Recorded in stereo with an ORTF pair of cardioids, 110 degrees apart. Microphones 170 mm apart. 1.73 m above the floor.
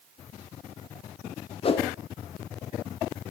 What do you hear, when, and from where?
1.6 s a whoosh: 35° left, 2.0 m